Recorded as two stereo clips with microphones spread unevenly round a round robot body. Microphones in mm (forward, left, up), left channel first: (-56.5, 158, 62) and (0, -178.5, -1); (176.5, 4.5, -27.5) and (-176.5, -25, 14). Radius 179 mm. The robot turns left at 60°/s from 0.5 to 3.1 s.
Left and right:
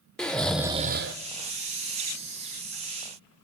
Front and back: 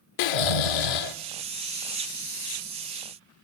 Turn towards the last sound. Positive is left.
turn(degrees=-145)